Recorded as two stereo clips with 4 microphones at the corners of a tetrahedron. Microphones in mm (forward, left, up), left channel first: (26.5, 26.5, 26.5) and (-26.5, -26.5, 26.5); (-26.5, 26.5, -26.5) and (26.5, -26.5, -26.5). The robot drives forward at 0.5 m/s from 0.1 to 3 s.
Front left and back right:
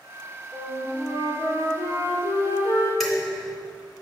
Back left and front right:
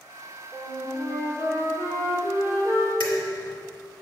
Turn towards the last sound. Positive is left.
turn(degrees=135)